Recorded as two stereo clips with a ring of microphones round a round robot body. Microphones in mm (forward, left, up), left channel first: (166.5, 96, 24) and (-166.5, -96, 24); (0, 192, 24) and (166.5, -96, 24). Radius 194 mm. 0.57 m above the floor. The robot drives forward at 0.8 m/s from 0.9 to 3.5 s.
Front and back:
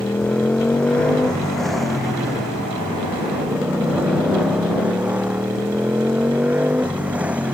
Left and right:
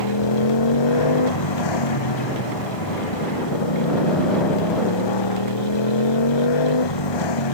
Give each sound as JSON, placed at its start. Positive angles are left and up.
{"t": 0.0, "sound": "a motorcycle", "azimuth_deg": 115}